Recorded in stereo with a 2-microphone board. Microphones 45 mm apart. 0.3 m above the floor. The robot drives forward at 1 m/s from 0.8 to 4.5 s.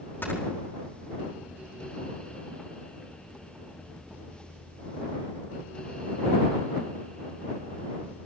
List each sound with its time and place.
0.2 s snoring: 50° left (ahead or behind), 5 m